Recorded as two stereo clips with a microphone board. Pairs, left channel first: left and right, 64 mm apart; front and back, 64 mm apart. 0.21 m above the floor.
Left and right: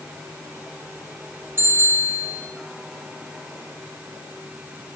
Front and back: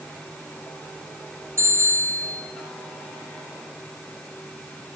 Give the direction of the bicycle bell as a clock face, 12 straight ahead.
5 o'clock.